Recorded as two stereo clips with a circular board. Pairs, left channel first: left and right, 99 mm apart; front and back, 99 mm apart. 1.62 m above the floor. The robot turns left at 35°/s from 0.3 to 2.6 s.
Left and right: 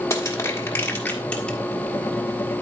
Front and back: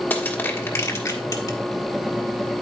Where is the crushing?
60° left, 1.4 m; by 1.6 s 15° left, 1.4 m.